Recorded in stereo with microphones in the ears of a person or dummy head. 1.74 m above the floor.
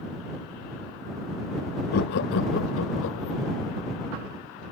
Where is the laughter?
50° left (ahead or behind); by 3.4 s 75° left (ahead or behind).